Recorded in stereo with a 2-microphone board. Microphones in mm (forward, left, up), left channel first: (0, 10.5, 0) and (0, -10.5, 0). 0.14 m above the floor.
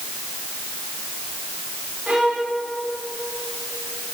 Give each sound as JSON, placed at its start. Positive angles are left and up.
{"t": 2.1, "sound": "a violin", "side_deg": -65, "distance_m": 8.0}